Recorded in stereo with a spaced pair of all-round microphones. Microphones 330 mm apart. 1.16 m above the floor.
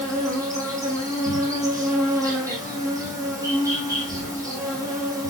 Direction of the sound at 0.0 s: 10° right (ahead or behind).